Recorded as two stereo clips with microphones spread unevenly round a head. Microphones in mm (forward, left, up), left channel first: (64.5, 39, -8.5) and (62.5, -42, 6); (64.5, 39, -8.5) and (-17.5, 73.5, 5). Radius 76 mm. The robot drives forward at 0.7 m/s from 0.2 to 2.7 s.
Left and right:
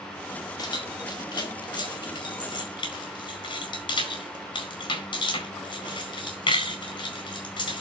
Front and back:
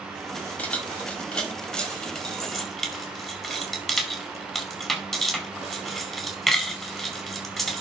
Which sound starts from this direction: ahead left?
Keys jangling, at 0.6 s.